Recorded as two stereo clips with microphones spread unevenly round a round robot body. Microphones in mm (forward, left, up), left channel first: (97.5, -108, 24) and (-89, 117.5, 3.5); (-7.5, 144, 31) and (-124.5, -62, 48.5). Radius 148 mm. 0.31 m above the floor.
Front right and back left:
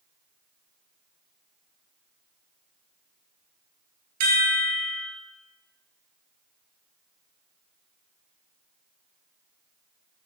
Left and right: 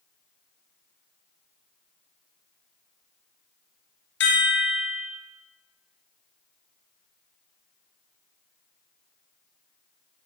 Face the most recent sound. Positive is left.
turn(degrees=100)